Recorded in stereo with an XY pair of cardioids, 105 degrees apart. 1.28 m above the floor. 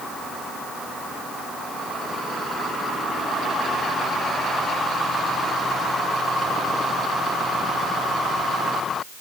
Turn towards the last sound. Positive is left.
No sound to turn to.